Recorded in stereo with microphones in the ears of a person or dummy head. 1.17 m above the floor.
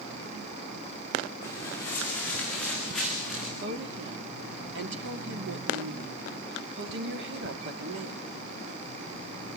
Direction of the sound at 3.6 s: 75° right (ahead or behind).